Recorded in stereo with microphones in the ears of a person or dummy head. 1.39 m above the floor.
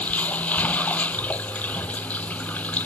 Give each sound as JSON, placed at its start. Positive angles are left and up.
{"t": 0.0, "sound": "running water", "side_deg": 10}